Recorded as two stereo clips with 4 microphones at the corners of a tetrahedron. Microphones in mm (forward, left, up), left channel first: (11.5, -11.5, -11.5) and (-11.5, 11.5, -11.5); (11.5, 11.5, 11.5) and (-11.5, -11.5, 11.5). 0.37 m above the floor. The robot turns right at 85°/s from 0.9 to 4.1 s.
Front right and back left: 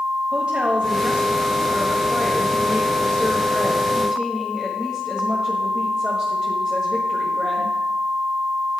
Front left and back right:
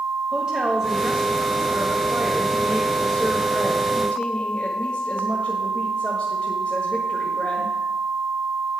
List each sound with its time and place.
0.3 s a woman speaking: 165° left, 1.5 m; by 7.8 s 80° left, 1.5 m